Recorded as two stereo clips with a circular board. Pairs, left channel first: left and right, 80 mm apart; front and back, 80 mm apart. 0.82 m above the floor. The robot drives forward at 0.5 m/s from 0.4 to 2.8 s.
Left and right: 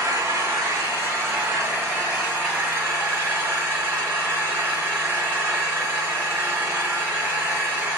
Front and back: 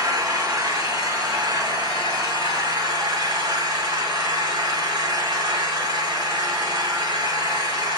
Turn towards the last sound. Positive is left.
turn(degrees=-155)